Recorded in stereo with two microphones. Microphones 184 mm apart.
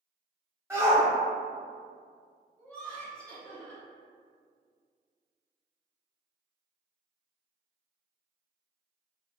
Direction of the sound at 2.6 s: 5° left (ahead or behind).